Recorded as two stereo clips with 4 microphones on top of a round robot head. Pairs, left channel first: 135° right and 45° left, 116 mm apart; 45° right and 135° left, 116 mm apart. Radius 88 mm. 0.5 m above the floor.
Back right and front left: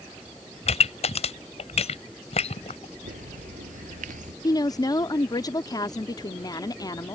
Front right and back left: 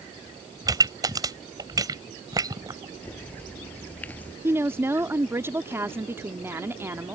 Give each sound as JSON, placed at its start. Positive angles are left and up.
{"t": 0.7, "sound": "a pop", "azimuth_deg": -165}
{"t": 3.0, "sound": "a bird", "azimuth_deg": 35}
{"t": 4.4, "sound": "a woman speaking", "azimuth_deg": -165}